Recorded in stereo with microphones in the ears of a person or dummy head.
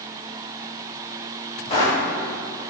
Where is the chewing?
No chewing in this recording.